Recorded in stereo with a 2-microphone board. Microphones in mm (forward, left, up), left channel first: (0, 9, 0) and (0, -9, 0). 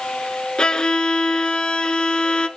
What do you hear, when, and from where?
0.6 s a violin: 40° left (ahead or behind), 1.0 m